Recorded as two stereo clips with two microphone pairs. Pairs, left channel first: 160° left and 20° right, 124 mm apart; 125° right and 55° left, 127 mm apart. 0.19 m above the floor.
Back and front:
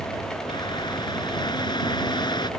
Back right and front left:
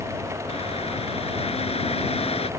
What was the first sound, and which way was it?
A bird, 150° right.